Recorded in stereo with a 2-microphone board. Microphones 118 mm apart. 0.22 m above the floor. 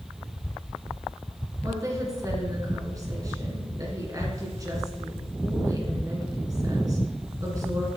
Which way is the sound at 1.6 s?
30° right (ahead or behind).